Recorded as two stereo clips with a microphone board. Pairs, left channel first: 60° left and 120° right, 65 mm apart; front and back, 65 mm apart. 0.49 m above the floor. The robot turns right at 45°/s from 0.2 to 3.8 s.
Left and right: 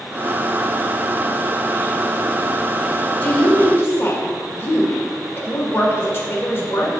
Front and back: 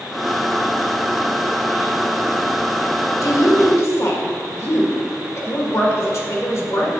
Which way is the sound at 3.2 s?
5° right.